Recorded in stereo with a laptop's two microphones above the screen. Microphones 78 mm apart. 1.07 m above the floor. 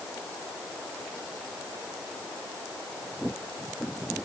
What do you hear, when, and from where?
Only background noise.